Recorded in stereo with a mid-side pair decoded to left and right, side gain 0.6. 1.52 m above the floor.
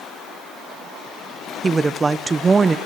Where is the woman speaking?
15° right, 1.0 m.